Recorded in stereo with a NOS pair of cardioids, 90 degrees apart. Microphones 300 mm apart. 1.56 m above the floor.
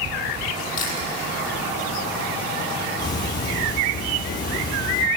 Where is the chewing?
60° left, 8 m.